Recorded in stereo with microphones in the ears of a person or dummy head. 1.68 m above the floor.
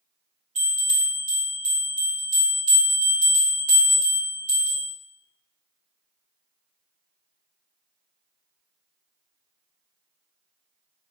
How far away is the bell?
About 0.8 m.